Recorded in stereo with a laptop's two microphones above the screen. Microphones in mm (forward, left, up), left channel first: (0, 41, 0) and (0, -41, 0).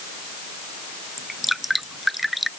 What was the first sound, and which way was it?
Dripping, centre (ahead or behind).